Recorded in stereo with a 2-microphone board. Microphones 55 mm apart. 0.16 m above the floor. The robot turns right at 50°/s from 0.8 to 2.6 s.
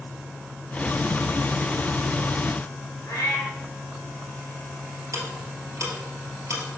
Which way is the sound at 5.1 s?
70° right (ahead or behind).